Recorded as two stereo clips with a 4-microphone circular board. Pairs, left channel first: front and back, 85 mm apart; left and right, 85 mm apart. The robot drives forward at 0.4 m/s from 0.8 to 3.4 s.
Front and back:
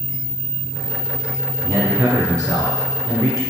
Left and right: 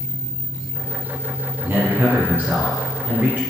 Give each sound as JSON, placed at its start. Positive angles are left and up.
{"t": 1.6, "sound": "a man speaking", "azimuth_deg": -140, "distance_m": 1.5}